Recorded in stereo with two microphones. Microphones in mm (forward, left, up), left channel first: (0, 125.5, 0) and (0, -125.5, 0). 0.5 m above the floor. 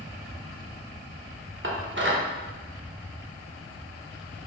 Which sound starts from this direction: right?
Dishes clattering, at 1.6 s.